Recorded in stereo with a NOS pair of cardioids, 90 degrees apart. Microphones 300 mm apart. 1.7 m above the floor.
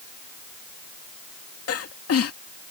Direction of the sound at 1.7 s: 50° left.